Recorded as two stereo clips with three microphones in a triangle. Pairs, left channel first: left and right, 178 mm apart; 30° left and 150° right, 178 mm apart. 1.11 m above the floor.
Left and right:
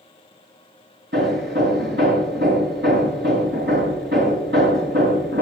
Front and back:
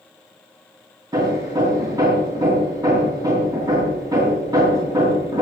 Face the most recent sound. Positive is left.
turn(degrees=-80)